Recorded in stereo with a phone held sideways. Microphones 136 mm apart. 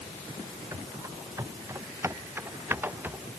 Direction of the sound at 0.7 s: 25° right (ahead or behind).